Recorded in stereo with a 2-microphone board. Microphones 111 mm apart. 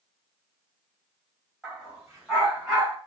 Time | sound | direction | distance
1.6 | a dog barking | 5° left (ahead or behind) | 2.0 m